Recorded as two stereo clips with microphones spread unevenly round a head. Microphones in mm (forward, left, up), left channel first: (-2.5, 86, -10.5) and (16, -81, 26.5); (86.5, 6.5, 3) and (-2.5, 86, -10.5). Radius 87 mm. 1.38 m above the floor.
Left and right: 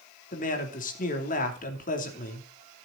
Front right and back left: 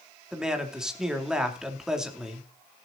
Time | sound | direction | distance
0.3 | a man speaking | 55° left | 3 m